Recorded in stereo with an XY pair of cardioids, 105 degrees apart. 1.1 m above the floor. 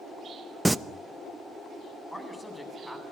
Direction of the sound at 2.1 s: 10° left.